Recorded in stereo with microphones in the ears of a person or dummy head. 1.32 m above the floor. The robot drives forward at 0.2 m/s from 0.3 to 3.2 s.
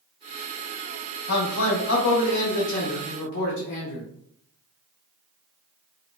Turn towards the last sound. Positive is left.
turn(degrees=70)  # may be behind; listen again after turning